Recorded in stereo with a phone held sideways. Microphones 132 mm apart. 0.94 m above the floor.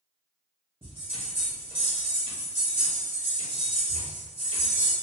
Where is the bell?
45° right (ahead or behind), 1.1 m.